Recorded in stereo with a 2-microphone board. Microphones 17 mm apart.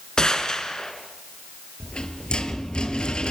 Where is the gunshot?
50° left (ahead or behind), 2.5 m.